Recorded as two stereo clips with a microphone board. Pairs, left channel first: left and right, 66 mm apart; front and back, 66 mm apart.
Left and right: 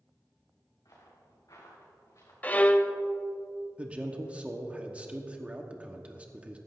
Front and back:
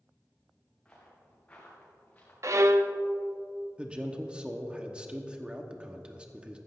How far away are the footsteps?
About 4 m.